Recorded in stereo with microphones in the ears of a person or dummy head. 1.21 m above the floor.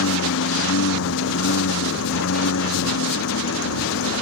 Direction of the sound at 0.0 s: 75° left (ahead or behind).